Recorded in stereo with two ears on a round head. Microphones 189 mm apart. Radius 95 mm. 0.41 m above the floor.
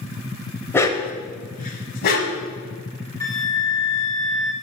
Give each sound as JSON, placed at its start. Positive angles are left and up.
{"t": 0.7, "sound": "a dog barking", "side_deg": 10, "distance_m": 0.6}
{"t": 3.2, "sound": "a flute", "side_deg": 15, "distance_m": 0.6}